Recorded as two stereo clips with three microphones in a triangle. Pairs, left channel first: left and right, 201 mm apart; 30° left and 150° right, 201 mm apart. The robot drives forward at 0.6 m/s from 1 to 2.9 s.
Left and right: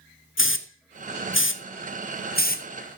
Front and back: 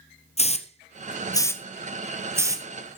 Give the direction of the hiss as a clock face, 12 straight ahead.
9 o'clock.